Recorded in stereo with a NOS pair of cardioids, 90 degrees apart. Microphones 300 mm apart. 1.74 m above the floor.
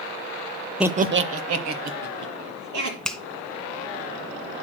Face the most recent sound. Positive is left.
turn(degrees=0)